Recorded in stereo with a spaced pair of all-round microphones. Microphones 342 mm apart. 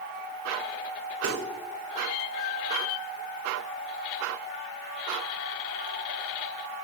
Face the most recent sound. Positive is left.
turn(degrees=-75)  # may be behind; listen again after turning